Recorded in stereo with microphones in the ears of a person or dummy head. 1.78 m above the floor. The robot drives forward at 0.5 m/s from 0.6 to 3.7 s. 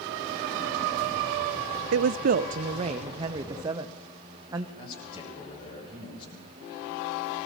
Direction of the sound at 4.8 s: 30° left (ahead or behind).